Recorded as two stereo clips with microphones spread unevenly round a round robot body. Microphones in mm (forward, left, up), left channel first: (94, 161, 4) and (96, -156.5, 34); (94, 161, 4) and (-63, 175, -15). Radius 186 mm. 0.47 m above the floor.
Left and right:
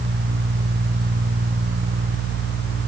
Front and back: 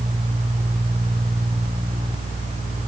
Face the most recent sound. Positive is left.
No sound to turn to.